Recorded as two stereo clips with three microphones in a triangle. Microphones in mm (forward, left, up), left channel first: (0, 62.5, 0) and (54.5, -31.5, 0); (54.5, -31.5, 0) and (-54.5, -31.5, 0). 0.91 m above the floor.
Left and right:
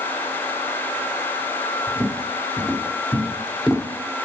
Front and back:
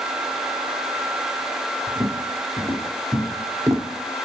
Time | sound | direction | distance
1.9 | footsteps | 120° right | 1.8 m